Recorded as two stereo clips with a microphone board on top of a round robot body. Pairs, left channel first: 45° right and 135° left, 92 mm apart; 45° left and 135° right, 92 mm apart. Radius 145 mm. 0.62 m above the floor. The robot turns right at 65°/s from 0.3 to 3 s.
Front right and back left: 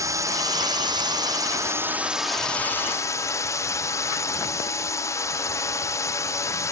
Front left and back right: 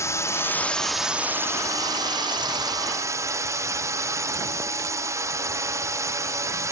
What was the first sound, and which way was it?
A drone, 95° left.